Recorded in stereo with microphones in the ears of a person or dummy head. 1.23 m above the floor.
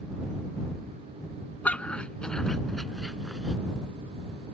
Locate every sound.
1.6 s a dog barking: 10° left (ahead or behind); by 3.5 s centre (ahead or behind)